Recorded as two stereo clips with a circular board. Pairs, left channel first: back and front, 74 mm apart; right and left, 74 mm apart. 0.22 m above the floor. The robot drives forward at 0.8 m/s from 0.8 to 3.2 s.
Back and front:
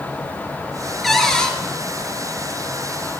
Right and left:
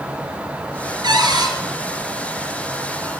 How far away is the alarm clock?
I don't hear an alarm clock.